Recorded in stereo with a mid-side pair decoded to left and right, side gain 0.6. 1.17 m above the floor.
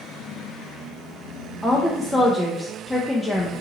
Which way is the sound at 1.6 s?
5° left.